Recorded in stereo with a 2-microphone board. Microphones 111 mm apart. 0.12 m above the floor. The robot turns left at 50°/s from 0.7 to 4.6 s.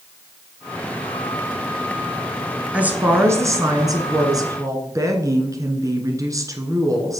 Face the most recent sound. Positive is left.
turn(degrees=-115)